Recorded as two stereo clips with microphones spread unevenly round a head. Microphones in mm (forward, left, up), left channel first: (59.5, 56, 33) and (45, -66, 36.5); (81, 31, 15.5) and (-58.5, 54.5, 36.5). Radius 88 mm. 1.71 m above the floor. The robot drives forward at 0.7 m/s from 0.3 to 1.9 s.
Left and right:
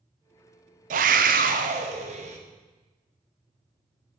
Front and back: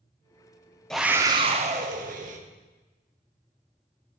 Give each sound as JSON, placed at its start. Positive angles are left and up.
{"t": 0.9, "sound": "a scream", "azimuth_deg": -100, "distance_m": 0.6}